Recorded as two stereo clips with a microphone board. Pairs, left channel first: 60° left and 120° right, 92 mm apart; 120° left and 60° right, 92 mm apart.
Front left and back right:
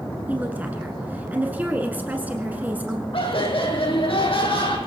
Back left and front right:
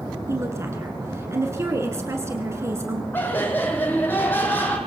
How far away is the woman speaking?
About 1.7 m.